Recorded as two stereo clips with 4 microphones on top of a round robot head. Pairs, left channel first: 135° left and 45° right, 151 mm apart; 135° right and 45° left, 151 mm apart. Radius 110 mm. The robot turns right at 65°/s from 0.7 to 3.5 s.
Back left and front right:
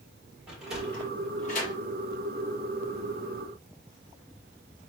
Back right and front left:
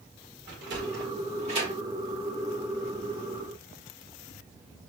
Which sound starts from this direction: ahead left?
A sliding door, at 0.5 s.